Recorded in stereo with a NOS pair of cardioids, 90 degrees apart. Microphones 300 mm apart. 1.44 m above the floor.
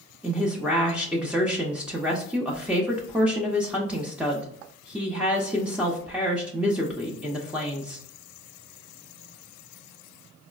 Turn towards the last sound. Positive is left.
turn(degrees=-5)